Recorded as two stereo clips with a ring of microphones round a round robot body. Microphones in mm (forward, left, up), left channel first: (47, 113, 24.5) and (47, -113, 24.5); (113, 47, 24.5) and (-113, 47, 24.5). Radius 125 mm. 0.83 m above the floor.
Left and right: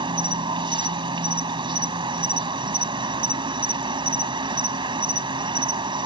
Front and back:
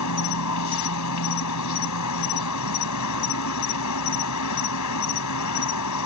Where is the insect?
20° right.